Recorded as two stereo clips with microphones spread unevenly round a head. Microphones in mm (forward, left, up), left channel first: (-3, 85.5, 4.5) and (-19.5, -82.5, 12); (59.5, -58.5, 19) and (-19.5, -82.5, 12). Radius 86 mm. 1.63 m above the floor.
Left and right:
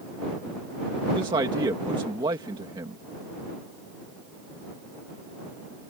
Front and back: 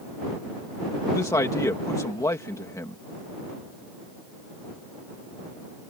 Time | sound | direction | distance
1.1 | a man speaking | 30° right | ?